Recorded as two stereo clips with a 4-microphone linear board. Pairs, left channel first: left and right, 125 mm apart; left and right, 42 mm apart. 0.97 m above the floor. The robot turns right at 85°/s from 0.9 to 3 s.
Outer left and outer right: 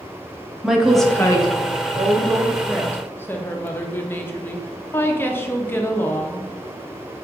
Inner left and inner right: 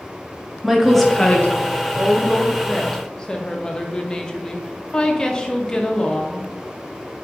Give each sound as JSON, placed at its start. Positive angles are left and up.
{"t": 0.6, "sound": "a woman speaking", "azimuth_deg": -5, "distance_m": 0.7}
{"t": 1.9, "sound": "a woman speaking", "azimuth_deg": -70, "distance_m": 0.6}